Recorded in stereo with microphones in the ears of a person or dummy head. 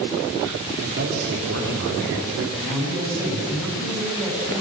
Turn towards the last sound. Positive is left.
turn(degrees=-5)  # may be behind; listen again after turning